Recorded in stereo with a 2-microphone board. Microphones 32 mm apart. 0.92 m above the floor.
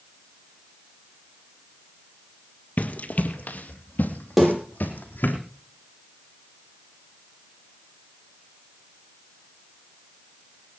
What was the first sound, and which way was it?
Running footsteps, 55° left (ahead or behind).